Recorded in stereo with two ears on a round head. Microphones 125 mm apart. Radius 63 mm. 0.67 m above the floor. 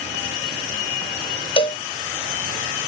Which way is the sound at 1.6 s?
35° left (ahead or behind).